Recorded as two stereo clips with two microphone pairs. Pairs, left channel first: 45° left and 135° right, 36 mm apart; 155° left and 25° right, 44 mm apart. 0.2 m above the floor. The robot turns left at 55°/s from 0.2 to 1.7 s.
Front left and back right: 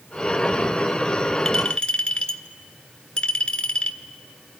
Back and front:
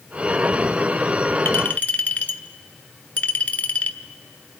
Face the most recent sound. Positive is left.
turn(degrees=110)